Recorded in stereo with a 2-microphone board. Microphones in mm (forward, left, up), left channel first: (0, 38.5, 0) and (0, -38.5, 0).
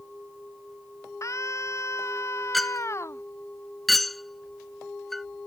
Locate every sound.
1.2 s a scream: 45° left (ahead or behind); by 3.2 s 40° left (ahead or behind)
2.5 s a clink: centre (ahead or behind)